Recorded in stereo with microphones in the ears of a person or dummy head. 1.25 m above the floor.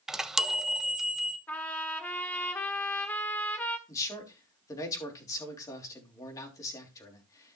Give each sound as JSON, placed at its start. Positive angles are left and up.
{"t": 0.1, "sound": "a chime", "side_deg": 0, "distance_m": 0.5}
{"t": 1.5, "sound": "a trumpet", "side_deg": 15, "distance_m": 1.5}
{"t": 3.9, "sound": "a man speaking", "side_deg": 20, "distance_m": 3.0}